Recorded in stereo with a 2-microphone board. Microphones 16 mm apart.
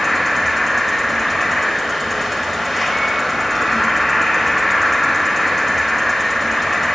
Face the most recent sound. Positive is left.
turn(degrees=0)  # may be behind; listen again after turning